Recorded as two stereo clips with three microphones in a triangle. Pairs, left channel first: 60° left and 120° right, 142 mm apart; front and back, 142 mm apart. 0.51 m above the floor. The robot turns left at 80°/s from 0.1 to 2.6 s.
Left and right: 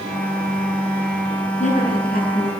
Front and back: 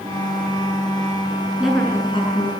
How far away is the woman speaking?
About 7.5 m.